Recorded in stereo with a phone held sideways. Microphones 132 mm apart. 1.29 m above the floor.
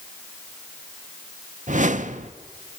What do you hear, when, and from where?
1.7 s a whoosh: 75° right (ahead or behind), 0.7 m